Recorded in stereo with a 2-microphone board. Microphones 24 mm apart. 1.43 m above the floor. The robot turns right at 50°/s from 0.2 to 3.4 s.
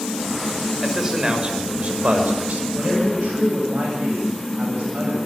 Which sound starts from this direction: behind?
A man speaking, at 0.8 s.